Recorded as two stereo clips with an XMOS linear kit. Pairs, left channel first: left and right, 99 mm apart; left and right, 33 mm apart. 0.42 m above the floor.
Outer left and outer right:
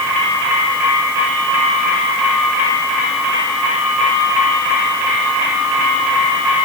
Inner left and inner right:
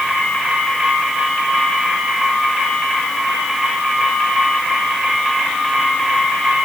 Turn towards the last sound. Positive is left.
No sound to turn to.